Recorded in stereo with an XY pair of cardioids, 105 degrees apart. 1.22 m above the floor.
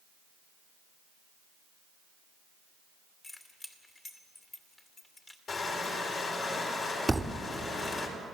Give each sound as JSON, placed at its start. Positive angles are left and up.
{"t": 3.2, "sound": "keys jangling", "azimuth_deg": 25, "distance_m": 2.5}
{"t": 5.5, "sound": "crushing", "azimuth_deg": 50, "distance_m": 4.5}
{"t": 7.1, "sound": "a thud", "azimuth_deg": -10, "distance_m": 1.7}